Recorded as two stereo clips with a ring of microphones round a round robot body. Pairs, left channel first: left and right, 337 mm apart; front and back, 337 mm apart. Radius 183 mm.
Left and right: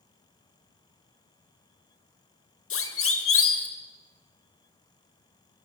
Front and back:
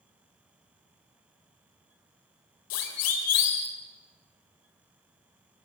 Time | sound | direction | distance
2.7 | a siren | 40° left | 3 m